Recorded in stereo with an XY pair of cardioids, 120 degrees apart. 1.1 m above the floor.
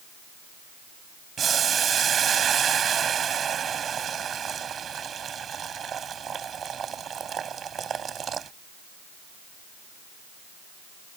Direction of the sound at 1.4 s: 40° right.